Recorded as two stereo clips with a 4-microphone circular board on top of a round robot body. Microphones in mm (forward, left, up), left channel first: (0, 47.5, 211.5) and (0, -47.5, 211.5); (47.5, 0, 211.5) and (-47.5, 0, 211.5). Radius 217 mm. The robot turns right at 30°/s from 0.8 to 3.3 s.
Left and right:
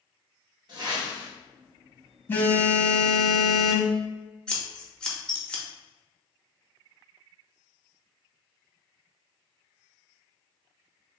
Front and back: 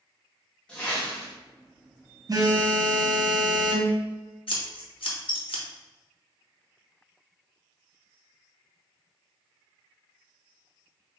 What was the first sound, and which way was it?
A whoosh, 75° right.